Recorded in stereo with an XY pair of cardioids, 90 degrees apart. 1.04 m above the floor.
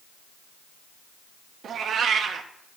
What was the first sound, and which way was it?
A cat meowing, 65° right.